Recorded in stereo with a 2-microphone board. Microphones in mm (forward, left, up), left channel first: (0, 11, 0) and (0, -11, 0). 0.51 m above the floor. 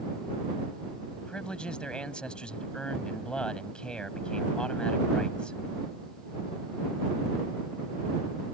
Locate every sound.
1.2 s a man speaking: 45° left (ahead or behind)